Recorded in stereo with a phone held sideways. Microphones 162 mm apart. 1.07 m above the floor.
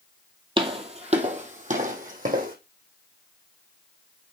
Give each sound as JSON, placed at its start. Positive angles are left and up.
{"t": 0.6, "sound": "footsteps", "side_deg": -30, "distance_m": 1.7}